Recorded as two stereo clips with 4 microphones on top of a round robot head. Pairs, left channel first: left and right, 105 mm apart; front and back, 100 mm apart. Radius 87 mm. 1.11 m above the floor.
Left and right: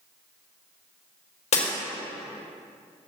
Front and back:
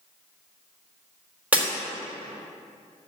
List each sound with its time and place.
1.5 s breaking glass: 100° left, 3.5 m